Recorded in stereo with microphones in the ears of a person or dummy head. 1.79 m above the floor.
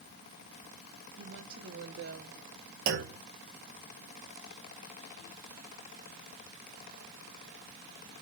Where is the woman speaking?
65° right (ahead or behind), 1.8 m; by 2.4 s 80° right, 1.7 m.